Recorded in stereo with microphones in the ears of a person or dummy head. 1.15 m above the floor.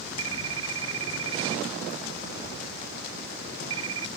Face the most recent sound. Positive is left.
turn(degrees=-80)